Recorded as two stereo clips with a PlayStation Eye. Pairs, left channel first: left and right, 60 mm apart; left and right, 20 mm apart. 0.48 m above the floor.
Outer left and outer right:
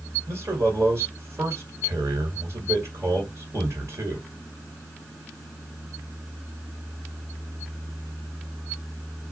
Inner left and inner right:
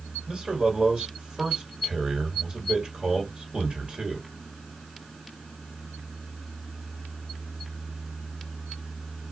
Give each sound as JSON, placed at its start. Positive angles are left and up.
{"t": 0.3, "sound": "a man speaking", "side_deg": -50, "distance_m": 1.8}